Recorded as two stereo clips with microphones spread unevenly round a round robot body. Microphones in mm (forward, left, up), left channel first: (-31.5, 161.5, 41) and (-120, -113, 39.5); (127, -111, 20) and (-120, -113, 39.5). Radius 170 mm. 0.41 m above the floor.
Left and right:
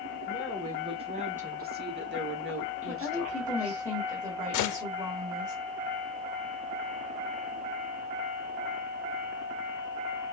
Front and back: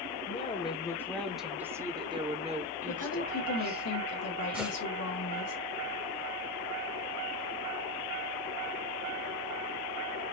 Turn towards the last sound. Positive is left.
turn(degrees=95)